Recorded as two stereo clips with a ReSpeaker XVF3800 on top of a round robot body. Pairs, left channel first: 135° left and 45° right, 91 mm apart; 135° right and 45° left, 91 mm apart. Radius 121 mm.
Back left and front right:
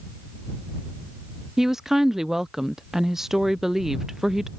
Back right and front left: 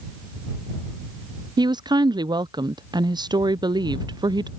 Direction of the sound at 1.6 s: 40° left.